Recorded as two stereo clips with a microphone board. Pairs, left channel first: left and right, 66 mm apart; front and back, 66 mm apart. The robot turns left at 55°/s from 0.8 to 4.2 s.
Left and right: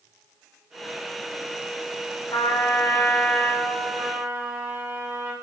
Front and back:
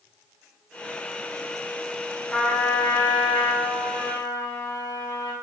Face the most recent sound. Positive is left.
turn(degrees=-35)